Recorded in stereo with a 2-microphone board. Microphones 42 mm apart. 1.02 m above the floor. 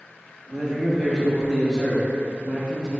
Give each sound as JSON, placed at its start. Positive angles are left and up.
{"t": 0.5, "sound": "a man speaking", "side_deg": -10, "distance_m": 0.8}